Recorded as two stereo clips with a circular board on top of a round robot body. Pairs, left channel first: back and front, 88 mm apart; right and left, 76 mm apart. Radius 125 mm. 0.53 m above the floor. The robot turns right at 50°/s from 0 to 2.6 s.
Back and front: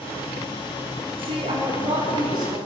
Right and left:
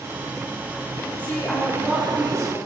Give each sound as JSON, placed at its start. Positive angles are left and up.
{"t": 1.2, "sound": "a woman speaking", "azimuth_deg": -20, "distance_m": 5.0}